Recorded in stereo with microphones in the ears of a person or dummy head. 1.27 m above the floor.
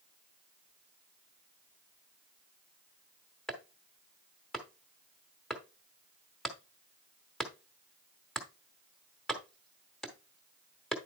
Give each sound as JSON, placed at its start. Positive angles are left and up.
{"t": 3.5, "sound": "chopping", "side_deg": 0, "distance_m": 1.1}